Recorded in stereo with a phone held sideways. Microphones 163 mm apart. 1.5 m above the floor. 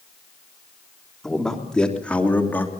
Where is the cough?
I don't hear a cough.